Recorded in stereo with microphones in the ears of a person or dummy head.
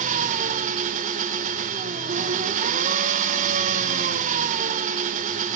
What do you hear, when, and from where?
0.0 s an engine running: 45° right (ahead or behind), 0.9 m